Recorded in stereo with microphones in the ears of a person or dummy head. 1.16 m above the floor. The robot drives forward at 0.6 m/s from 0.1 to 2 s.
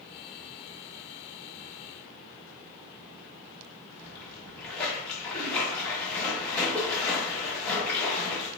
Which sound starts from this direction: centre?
A splash, at 4.0 s.